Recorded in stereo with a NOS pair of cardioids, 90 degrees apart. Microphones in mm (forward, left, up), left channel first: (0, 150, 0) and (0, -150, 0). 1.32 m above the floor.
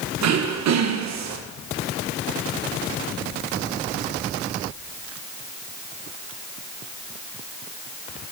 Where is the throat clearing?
65° right, 1.2 m.